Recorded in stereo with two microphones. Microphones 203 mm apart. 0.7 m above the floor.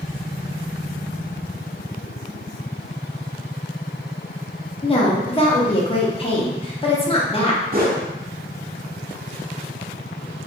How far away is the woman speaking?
About 0.6 m.